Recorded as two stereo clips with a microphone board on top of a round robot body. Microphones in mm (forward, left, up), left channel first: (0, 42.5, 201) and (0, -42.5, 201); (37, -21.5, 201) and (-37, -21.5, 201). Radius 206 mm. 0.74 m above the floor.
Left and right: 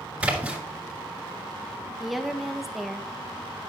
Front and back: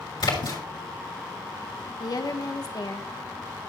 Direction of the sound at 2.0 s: Straight ahead.